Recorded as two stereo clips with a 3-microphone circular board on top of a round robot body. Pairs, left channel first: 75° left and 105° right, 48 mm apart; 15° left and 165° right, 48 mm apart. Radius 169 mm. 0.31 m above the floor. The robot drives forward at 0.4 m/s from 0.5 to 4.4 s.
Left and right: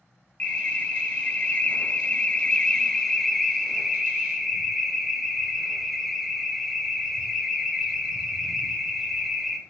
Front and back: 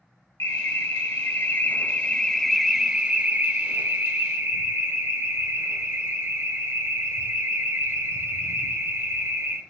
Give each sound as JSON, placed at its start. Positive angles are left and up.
{"t": 0.4, "sound": "an alarm", "azimuth_deg": 10, "distance_m": 1.0}